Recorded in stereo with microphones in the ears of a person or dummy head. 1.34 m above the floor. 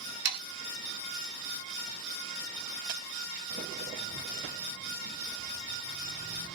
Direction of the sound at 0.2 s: 55° right (ahead or behind).